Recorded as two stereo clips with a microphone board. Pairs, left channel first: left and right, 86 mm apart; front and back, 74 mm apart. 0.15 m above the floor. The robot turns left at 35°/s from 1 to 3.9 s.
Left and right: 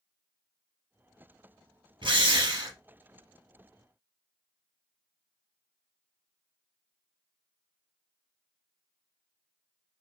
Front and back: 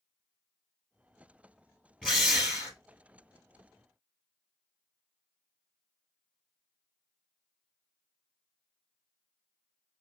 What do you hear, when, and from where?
2.0 s a drill: 85° right, 2.5 m; by 2.8 s 110° right, 2.5 m